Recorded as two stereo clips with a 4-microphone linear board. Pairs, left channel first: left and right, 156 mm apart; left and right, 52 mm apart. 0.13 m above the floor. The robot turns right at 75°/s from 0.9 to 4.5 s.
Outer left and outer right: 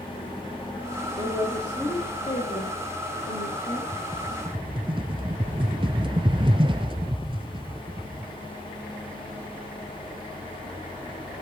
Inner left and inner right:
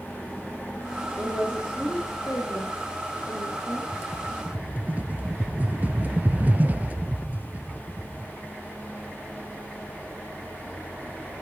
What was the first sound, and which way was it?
A woman speaking, 55° right.